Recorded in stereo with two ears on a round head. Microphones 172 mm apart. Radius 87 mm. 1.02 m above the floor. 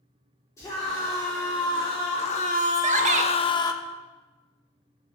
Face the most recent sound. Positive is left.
turn(degrees=-40)  # may be behind; listen again after turning